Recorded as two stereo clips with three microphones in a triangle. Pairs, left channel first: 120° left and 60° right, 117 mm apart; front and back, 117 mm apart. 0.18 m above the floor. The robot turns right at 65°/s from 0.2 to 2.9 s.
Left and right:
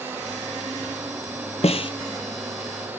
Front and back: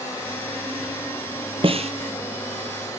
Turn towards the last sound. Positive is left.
turn(degrees=-135)